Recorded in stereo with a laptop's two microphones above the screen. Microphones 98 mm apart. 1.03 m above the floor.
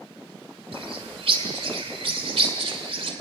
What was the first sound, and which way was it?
A bird, 70° right (ahead or behind).